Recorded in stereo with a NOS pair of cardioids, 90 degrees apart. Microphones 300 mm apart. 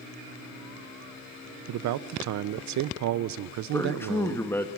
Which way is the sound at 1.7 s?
65° right.